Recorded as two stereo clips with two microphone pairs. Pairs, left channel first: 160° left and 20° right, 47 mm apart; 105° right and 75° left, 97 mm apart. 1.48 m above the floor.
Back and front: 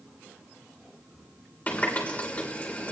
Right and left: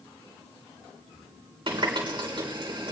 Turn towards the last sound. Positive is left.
turn(degrees=100)